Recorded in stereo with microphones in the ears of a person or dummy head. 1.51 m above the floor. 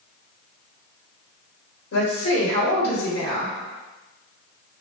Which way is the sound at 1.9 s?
80° left.